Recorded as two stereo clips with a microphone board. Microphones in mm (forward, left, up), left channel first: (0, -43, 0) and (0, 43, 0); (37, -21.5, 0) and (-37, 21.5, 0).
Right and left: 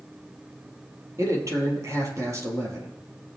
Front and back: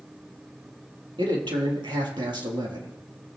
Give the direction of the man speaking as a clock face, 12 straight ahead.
7 o'clock.